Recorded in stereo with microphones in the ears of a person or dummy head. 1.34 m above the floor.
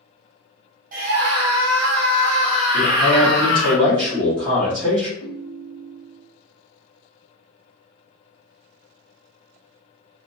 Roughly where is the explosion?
No explosion in this recording.